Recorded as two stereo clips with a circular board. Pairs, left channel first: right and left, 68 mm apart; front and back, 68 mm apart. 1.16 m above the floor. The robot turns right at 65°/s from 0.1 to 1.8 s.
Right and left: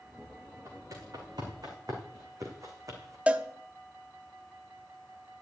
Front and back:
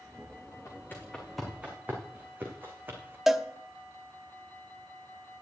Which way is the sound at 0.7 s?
40° left.